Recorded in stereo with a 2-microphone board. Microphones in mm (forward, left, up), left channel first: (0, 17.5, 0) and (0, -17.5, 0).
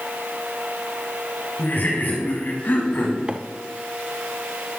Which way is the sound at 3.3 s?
30° right (ahead or behind).